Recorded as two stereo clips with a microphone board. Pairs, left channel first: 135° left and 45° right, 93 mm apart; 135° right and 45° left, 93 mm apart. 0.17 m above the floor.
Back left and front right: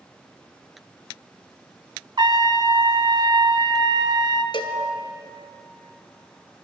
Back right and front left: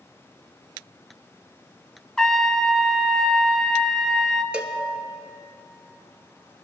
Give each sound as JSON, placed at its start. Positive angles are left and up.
{"t": 2.2, "sound": "a trumpet", "azimuth_deg": -50, "distance_m": 0.6}
{"t": 4.5, "sound": "a cowbell", "azimuth_deg": 120, "distance_m": 0.8}